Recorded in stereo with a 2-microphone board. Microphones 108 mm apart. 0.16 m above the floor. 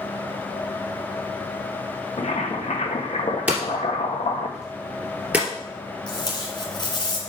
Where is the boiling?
75° left (ahead or behind), 2 m.